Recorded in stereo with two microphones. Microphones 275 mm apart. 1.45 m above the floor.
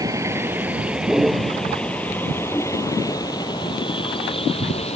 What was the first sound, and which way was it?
A vehicle, 10° right (ahead or behind).